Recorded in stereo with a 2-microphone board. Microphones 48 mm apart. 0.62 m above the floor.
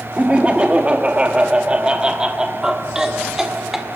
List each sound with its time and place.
0.2 s laughter: 30° right (ahead or behind), 1.4 m; by 3.9 s 10° right (ahead or behind), 2.5 m